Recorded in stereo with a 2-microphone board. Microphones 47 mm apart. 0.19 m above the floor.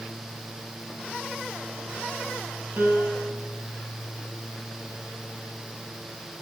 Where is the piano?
65° right (ahead or behind), 5 m.